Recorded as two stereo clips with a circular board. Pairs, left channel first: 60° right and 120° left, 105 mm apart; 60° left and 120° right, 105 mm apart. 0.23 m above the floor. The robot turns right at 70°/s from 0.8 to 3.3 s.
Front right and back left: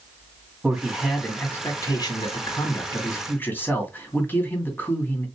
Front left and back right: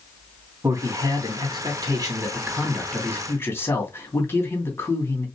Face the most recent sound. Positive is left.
turn(degrees=5)